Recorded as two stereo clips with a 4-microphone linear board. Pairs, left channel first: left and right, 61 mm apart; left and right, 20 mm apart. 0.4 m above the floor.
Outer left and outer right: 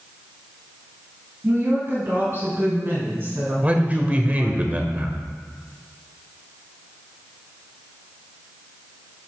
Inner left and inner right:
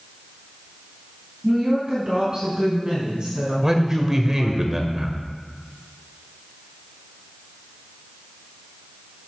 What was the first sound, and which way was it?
A woman speaking, 45° right (ahead or behind).